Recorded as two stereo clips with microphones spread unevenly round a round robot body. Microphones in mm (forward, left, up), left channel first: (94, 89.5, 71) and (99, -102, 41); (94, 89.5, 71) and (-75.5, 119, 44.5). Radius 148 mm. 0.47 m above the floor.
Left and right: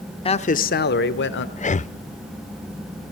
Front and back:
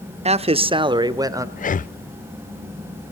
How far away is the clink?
I don't hear a clink.